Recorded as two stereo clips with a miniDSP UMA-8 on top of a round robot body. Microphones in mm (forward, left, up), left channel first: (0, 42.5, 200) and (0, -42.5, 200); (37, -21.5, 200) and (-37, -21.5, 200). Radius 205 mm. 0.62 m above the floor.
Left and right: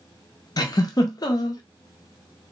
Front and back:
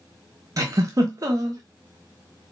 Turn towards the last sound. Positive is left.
turn(degrees=135)